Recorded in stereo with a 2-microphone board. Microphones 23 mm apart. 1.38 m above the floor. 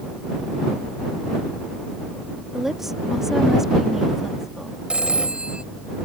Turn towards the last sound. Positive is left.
turn(degrees=-45)  # may be behind; listen again after turning